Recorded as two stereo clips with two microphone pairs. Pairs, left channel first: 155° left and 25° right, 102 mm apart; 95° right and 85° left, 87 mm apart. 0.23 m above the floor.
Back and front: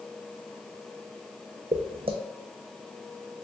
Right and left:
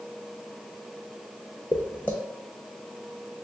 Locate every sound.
1.7 s footsteps: 25° right, 0.6 m